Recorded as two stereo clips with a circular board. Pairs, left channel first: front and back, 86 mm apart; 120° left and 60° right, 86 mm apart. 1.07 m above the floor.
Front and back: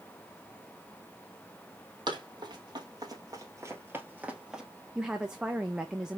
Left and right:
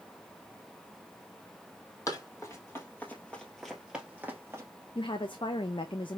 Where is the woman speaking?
100° left, 0.6 m.